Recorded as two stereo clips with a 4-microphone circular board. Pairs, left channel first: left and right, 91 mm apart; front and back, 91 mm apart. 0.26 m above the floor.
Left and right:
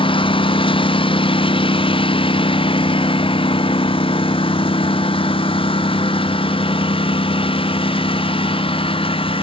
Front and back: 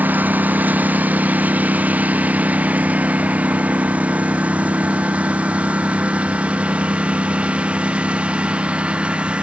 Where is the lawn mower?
110° left; by 9.4 s 105° left.